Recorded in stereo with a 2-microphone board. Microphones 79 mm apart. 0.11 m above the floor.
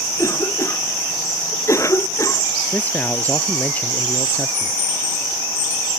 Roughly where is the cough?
Left.